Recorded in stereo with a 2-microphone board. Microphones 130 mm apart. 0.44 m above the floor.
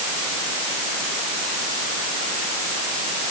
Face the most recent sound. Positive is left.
No sound to turn to.